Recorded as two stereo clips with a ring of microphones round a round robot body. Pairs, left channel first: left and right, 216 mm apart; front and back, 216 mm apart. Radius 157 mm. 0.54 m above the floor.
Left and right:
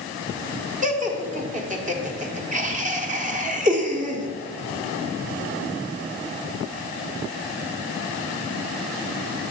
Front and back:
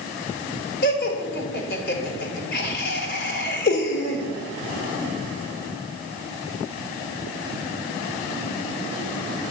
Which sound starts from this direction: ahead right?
Laughter, at 0.8 s.